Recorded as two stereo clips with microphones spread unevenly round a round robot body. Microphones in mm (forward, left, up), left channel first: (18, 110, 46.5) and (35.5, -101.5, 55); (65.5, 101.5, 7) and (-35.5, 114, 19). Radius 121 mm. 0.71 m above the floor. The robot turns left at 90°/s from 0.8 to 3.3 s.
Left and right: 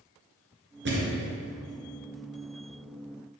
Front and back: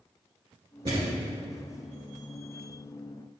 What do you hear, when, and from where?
0.8 s a thud: 130° right, 2.5 m; by 1.2 s 160° right, 2.5 m